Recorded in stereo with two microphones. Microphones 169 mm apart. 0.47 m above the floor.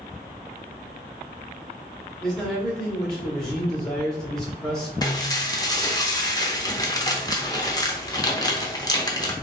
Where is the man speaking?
5° left (ahead or behind), 1.7 m.